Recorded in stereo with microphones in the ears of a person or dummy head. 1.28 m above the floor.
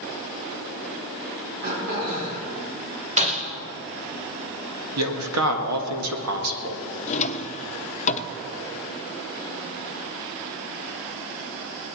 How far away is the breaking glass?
About 2 m.